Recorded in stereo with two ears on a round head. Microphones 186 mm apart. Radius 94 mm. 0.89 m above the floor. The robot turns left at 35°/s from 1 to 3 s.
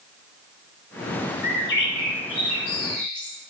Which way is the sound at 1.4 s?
135° left.